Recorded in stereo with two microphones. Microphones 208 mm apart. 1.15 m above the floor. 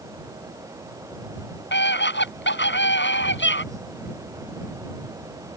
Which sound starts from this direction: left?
A scream, at 1.7 s.